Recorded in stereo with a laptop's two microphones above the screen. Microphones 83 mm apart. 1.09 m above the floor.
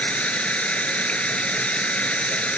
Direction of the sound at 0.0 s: 15° left (ahead or behind).